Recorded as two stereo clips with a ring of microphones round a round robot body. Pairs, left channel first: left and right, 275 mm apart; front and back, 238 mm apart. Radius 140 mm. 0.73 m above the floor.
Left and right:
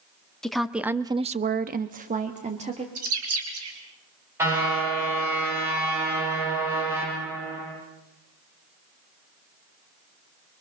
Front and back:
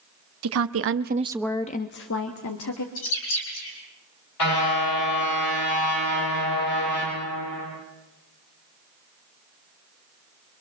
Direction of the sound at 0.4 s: Straight behind.